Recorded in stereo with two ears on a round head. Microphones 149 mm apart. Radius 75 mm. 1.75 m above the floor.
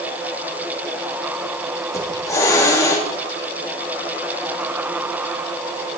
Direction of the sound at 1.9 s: 15° left (ahead or behind).